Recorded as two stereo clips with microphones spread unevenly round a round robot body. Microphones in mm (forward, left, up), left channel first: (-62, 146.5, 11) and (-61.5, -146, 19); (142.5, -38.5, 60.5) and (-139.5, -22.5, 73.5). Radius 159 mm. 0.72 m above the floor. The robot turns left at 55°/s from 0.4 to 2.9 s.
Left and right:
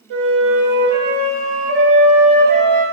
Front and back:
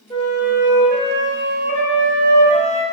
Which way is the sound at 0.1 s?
75° right.